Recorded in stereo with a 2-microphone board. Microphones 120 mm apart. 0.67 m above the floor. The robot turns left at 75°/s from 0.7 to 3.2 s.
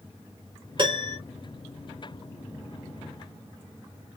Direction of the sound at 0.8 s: 40° right (ahead or behind).